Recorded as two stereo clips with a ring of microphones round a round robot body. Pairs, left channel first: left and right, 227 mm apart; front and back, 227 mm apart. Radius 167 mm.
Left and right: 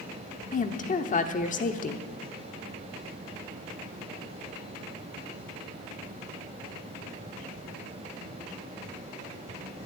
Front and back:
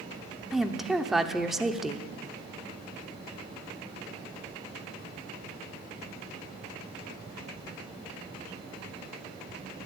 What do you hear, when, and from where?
0.5 s a woman speaking: 95° left, 1.0 m